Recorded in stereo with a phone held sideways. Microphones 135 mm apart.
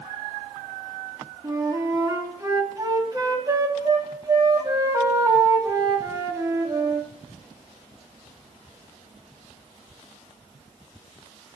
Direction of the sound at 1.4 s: 25° right (ahead or behind).